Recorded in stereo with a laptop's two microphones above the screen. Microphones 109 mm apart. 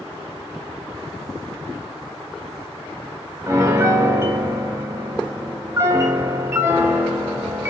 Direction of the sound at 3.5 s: 25° right (ahead or behind).